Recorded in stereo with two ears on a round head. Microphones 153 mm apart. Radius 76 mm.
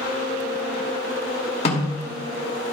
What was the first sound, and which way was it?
A snare drum, 40° left (ahead or behind).